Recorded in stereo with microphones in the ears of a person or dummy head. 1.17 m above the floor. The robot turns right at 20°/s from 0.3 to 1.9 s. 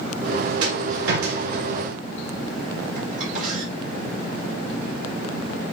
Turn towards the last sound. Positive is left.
turn(degrees=-45)  # may be behind; listen again after turning